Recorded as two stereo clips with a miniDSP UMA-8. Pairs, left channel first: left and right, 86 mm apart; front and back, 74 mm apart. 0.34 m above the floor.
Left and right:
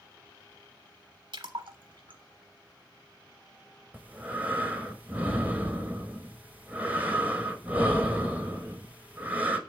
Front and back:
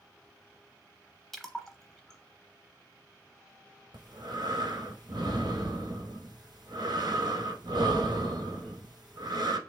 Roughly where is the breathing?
Behind.